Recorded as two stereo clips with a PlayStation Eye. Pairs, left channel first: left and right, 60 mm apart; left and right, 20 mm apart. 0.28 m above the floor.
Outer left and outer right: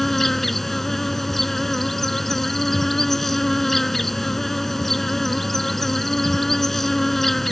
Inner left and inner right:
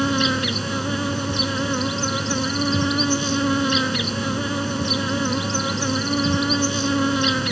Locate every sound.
0.0 s an insect: 5° left (ahead or behind)